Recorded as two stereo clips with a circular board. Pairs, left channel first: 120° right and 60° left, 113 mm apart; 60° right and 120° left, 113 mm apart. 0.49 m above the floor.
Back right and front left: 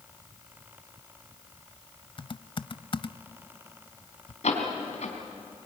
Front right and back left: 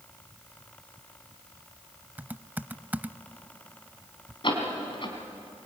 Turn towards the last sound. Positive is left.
turn(degrees=-105)